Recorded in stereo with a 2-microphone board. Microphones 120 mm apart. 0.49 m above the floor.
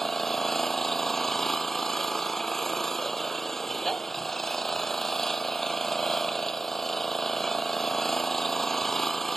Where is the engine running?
5° left (ahead or behind).